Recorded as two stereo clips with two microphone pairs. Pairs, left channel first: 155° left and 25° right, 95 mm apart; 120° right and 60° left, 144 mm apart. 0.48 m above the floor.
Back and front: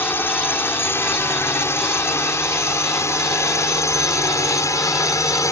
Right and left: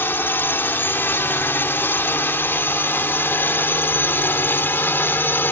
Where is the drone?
175° right; by 5.5 s 175° left.